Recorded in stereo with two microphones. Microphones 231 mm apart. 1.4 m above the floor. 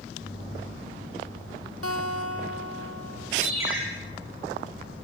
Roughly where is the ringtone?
Right.